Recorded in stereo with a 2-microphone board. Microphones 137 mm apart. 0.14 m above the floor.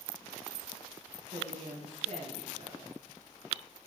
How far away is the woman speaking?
About 3.5 m.